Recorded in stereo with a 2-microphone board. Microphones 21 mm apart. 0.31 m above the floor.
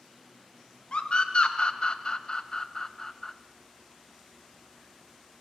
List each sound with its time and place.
0.9 s a scream: 50° left (ahead or behind), 1.8 m; by 3.3 s 20° left (ahead or behind), 1.6 m